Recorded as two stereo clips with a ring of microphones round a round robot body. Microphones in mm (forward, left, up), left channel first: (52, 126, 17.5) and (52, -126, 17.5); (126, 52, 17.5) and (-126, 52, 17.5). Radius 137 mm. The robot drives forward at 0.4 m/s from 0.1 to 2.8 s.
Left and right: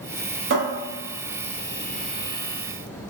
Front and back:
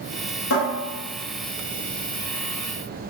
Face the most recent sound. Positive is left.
turn(degrees=-80)